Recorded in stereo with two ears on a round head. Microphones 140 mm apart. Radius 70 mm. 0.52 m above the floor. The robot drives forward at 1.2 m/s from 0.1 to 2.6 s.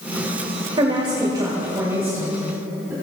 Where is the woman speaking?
35° right (ahead or behind), 1.8 m; by 2.9 s 15° right (ahead or behind), 3.5 m.